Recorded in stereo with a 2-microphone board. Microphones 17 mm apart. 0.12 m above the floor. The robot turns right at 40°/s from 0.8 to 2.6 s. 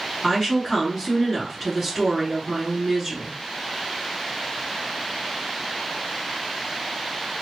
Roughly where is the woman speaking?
Behind left.